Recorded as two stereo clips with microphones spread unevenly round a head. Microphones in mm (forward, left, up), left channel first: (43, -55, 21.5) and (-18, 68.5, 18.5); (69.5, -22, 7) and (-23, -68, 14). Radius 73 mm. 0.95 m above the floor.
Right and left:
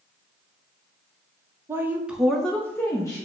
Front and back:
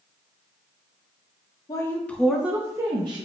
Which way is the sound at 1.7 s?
55° left.